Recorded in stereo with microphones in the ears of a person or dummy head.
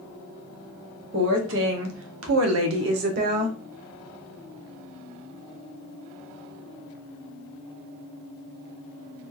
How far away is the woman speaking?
About 1.4 m.